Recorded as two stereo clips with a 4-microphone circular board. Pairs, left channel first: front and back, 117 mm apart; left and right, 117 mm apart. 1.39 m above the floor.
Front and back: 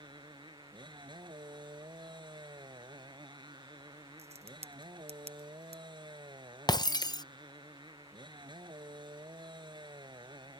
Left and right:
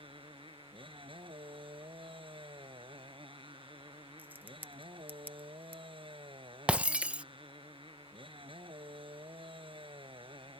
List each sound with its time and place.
0.0 s a motorcycle: 130° right
4.2 s a crack: 165° right
6.7 s breaking glass: 20° right